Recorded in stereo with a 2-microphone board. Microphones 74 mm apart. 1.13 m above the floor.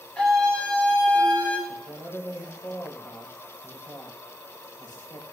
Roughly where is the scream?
Centre.